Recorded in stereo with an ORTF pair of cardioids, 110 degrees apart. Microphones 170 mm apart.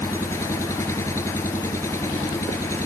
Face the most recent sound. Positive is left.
turn(degrees=15)